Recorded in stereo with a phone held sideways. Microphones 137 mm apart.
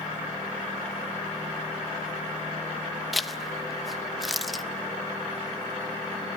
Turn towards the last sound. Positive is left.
turn(degrees=0)  # may be behind; listen again after turning